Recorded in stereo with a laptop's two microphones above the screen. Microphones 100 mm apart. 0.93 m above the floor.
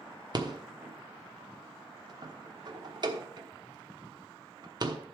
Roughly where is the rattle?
Right.